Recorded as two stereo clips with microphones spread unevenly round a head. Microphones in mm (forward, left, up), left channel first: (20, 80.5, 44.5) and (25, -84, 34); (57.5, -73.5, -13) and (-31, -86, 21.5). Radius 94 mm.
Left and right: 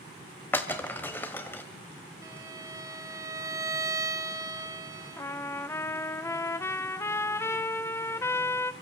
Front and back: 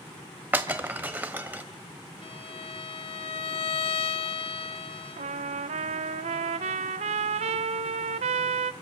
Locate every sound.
0.5 s breaking glass: 165° left, 1.2 m
2.2 s a violin: 15° right, 1.0 m
5.2 s a trumpet: 170° left, 0.7 m